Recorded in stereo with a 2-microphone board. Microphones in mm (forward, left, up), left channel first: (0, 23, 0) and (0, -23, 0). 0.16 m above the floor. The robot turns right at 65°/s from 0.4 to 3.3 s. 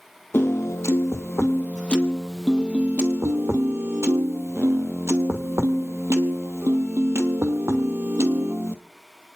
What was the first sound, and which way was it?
A piano, 55° left.